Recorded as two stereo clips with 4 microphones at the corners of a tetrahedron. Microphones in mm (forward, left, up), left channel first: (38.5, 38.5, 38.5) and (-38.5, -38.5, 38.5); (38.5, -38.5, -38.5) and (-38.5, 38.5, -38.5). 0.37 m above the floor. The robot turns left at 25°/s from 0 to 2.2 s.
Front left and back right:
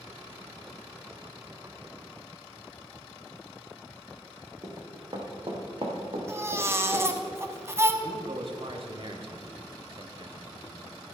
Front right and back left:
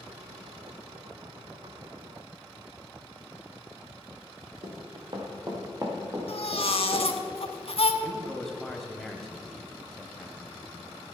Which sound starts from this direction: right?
A baby crying, at 6.3 s.